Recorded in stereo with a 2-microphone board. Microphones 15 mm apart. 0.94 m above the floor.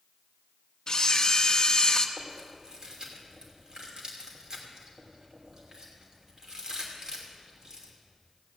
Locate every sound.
0.9 s a camera shutter: 45° left (ahead or behind), 1.0 m
2.2 s chewing: 40° right (ahead or behind), 3 m